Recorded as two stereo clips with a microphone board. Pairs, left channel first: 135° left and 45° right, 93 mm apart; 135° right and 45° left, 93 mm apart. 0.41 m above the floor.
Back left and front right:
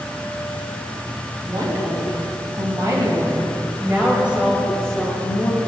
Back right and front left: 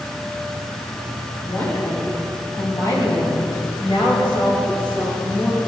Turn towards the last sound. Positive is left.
turn(degrees=-155)